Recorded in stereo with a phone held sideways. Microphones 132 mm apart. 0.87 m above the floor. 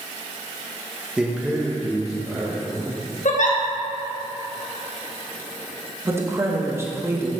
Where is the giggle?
65° left (ahead or behind), 1.0 m.